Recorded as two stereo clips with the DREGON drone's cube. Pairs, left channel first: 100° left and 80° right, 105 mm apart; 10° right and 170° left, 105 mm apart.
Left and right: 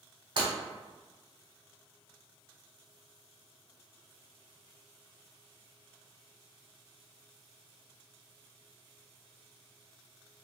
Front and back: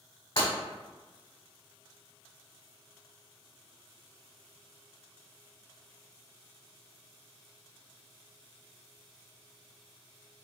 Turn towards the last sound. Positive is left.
turn(degrees=-40)